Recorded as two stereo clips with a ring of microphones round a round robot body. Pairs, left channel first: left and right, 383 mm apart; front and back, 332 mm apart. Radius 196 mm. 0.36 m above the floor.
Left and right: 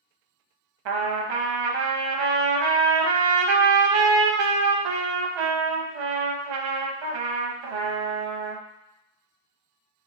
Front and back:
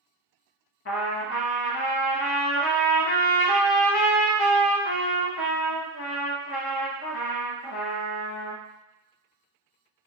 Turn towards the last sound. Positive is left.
turn(degrees=-60)